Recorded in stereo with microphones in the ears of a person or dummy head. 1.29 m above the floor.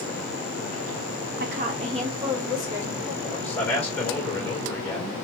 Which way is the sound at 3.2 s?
5° left (ahead or behind).